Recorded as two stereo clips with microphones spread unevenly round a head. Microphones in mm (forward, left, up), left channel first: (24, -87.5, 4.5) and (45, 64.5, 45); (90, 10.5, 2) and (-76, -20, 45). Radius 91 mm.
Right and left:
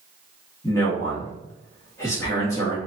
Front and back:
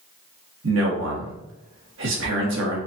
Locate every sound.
0.6 s a man speaking: 175° right, 1.9 m